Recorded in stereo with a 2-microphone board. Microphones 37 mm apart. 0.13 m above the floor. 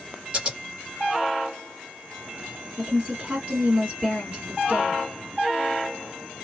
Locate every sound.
0.3 s scissors: 30° right (ahead or behind), 1.7 m
2.8 s a woman speaking: 30° right (ahead or behind), 1.8 m